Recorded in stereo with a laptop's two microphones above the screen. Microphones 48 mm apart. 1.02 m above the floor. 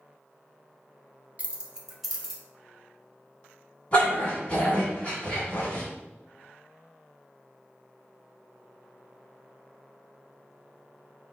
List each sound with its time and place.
1.4 s keys jangling: 30° right (ahead or behind), 0.5 m; by 2.4 s 5° left (ahead or behind), 1.1 m
3.9 s a dog barking: 30° left (ahead or behind), 2.0 m